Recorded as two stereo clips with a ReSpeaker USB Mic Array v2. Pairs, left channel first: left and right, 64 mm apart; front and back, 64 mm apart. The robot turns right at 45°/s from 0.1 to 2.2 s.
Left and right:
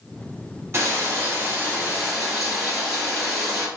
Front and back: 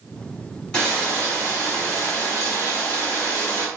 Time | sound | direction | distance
0.7 | frying | 65° right | 1.6 m